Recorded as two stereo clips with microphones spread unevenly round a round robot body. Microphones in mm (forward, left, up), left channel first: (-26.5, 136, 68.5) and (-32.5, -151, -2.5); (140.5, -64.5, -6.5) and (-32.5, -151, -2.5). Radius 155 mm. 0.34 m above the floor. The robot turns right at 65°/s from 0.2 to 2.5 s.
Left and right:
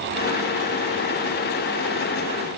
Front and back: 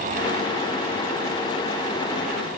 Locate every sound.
Only background noise.